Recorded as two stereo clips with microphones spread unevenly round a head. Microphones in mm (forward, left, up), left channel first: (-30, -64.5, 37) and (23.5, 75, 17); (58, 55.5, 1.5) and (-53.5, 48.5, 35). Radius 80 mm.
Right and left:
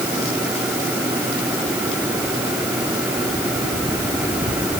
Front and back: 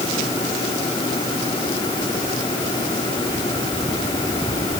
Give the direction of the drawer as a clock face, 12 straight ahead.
No drawer in this recording.